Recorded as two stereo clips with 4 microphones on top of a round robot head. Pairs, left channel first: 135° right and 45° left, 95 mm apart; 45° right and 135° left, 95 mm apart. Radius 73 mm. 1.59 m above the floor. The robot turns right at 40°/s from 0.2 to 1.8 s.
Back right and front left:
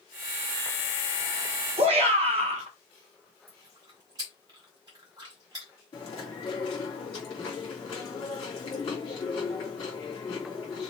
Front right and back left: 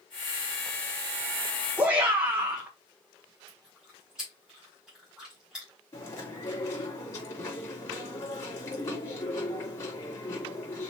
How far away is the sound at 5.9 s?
About 3 m.